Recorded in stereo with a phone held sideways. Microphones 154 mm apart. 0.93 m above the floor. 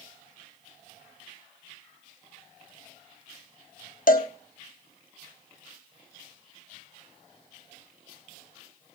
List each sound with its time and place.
4.1 s a cowbell: 65° left (ahead or behind), 1.5 m